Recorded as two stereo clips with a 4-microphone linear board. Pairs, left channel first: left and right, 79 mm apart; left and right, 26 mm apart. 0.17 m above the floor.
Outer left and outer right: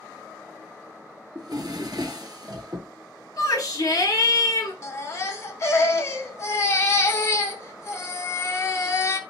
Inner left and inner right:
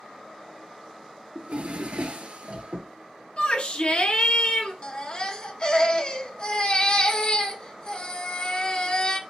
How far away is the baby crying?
About 0.8 m.